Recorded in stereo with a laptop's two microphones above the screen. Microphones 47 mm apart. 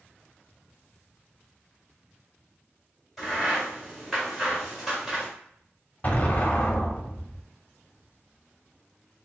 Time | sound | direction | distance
3.2 | a crack | centre (ahead or behind) | 1.7 m
6.0 | an explosion | 35° left (ahead or behind) | 0.7 m